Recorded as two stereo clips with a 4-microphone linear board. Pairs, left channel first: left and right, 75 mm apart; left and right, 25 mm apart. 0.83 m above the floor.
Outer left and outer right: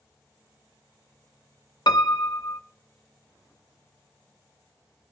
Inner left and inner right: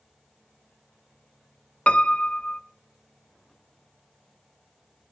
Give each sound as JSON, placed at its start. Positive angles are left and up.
{"t": 1.9, "sound": "a piano", "side_deg": 65, "distance_m": 0.6}